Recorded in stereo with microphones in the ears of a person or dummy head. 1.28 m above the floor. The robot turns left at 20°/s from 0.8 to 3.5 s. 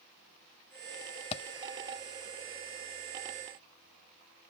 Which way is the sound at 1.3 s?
30° left (ahead or behind).